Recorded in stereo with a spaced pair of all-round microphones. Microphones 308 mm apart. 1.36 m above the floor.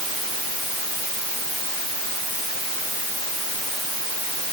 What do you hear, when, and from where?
Only background noise.